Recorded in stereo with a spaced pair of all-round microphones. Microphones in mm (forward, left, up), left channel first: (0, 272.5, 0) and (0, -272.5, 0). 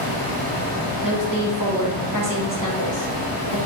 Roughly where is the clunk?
No clunk in this recording.